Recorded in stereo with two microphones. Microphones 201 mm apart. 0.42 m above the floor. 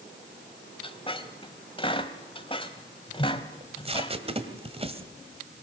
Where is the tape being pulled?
30° right (ahead or behind), 1.7 m.